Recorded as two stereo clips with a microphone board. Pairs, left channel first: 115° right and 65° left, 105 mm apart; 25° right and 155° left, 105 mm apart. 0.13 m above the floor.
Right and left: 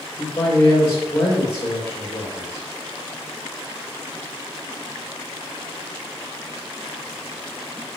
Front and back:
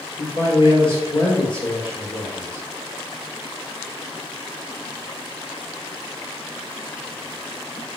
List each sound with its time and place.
0.2 s a man speaking: 50° right, 3.5 m